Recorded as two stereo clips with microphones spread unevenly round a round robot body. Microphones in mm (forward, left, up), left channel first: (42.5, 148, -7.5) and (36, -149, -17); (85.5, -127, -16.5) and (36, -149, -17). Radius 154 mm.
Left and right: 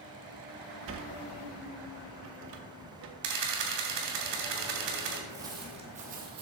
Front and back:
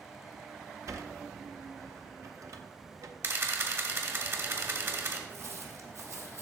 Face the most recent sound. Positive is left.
turn(degrees=-140)